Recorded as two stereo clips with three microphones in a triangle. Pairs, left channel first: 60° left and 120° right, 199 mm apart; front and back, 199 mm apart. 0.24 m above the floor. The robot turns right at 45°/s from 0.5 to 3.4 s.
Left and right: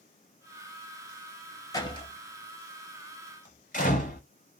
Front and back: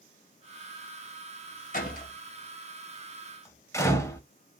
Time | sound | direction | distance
1.7 | a door slam | 5° right | 1.0 m